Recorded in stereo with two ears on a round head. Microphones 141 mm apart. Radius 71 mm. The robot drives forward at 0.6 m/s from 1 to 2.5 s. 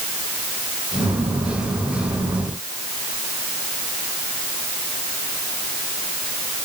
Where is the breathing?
No breathing in this recording.